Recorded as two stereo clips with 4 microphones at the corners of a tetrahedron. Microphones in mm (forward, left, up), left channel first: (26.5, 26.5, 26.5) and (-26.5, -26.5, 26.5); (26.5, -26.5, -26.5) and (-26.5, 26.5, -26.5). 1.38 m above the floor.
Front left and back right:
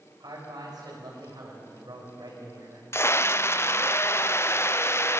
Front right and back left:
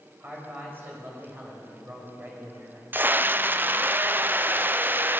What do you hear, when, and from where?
0.2 s a man speaking: 165° right, 6 m
2.9 s a scream: 85° left, 0.6 m